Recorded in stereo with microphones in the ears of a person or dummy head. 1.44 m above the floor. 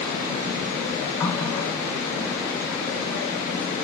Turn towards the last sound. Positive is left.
turn(degrees=15)  # may be behind; listen again after turning